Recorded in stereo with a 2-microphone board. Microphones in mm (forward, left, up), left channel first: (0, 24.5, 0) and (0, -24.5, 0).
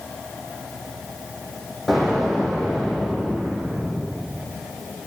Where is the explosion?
Centre (ahead or behind), 7 m.